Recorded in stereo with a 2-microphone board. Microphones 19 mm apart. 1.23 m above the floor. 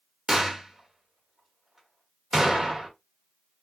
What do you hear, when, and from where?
0.3 s a gunshot: 30° right (ahead or behind), 1.8 m